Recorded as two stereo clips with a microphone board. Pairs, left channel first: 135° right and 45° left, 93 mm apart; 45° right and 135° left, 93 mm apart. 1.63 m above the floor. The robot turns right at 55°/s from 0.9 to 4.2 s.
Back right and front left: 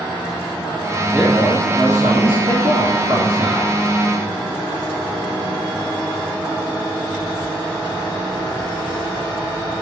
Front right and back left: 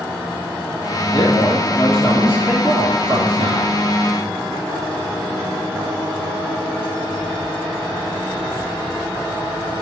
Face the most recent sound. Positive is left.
turn(degrees=135)